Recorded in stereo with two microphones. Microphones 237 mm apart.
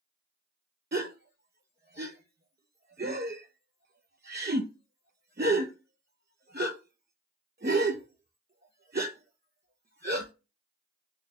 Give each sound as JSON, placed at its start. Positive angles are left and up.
{"t": 0.9, "sound": "a gasp", "side_deg": -45, "distance_m": 0.6}